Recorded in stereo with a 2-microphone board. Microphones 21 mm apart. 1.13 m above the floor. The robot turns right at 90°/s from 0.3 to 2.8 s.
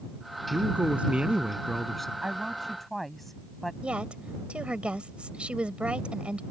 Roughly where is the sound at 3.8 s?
Right.